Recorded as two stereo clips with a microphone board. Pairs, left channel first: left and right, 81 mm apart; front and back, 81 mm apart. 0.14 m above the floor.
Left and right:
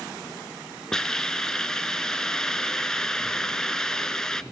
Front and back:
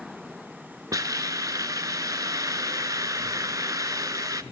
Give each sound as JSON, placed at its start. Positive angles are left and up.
{"t": 0.9, "sound": "a hiss", "azimuth_deg": 170, "distance_m": 0.6}